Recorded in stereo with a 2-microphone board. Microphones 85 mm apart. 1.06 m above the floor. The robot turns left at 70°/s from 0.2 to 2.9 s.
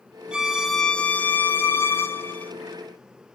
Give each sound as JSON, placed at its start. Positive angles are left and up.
{"t": 0.3, "sound": "a violin", "side_deg": -10, "distance_m": 0.5}